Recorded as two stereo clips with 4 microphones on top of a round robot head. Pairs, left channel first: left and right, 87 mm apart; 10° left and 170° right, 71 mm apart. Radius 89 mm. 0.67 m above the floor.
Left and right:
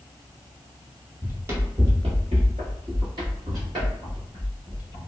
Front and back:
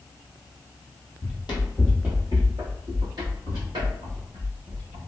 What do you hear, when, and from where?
1.2 s running footsteps: 20° right, 0.9 m; by 5.0 s 150° right, 2.5 m